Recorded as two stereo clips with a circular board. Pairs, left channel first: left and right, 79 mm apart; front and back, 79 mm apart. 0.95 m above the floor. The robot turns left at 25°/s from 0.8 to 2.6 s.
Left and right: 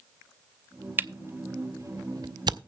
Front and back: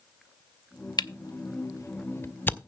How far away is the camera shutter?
About 0.6 m.